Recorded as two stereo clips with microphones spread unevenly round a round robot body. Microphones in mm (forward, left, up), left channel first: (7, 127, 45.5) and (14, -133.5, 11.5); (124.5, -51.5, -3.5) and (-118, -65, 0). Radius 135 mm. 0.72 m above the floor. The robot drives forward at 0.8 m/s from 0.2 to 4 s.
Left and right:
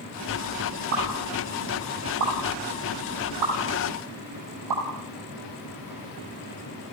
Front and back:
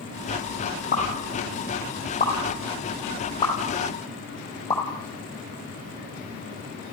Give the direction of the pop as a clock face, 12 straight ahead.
2 o'clock.